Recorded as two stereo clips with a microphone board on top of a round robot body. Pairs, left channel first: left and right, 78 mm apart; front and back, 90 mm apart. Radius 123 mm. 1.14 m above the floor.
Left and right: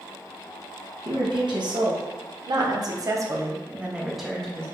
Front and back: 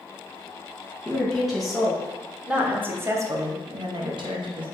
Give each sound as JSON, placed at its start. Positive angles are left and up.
{"t": 1.1, "sound": "a woman speaking", "azimuth_deg": -85, "distance_m": 1.5}